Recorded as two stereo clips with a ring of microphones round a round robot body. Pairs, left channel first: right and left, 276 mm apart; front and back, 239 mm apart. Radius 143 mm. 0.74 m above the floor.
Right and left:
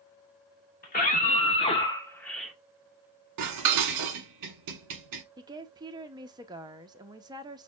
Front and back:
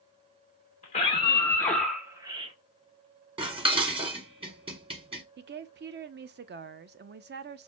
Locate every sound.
0.8 s a scream: 50° right, 1.0 m; by 2.5 s 175° left, 0.8 m
3.4 s dishes clattering: 110° left, 0.9 m
5.4 s a woman speaking: 160° left, 0.5 m